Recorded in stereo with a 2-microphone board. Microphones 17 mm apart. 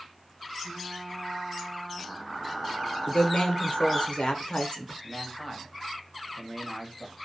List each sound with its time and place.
0.6 s frying: 10° right (ahead or behind), 1.3 m
3.1 s a woman speaking: 80° left, 0.6 m
5.0 s a man speaking: 5° left (ahead or behind), 0.8 m